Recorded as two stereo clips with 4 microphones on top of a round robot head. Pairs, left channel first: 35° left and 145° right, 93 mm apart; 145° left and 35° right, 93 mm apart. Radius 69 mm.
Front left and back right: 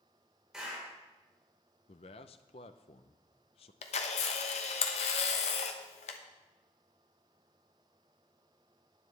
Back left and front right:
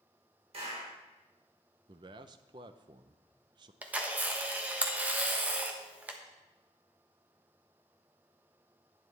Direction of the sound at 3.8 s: 40° left.